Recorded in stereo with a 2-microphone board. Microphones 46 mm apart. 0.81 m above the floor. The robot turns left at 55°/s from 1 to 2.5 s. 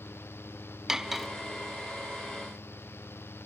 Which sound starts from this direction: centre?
Cutlery clinking, at 0.9 s.